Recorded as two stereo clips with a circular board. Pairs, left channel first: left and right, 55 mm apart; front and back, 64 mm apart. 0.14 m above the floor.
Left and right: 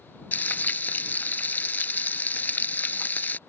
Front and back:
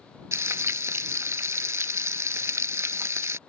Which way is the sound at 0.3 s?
145° left.